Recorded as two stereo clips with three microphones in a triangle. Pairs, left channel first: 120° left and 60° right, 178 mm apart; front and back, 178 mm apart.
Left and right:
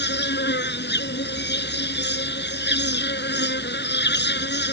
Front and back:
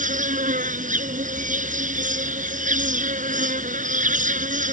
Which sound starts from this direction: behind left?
An insect, at 0.0 s.